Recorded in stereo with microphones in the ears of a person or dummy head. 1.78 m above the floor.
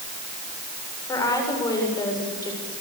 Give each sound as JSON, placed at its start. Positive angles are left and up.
{"t": 1.1, "sound": "a woman speaking", "side_deg": 25, "distance_m": 7.0}